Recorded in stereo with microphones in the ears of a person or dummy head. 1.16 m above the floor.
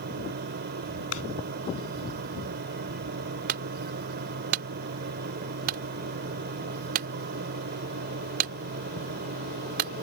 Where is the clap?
90° left.